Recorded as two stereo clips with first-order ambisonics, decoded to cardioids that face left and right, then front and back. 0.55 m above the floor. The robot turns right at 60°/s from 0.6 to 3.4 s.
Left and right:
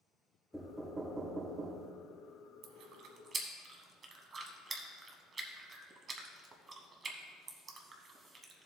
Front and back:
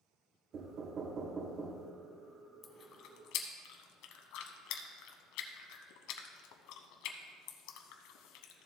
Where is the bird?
I don't hear a bird.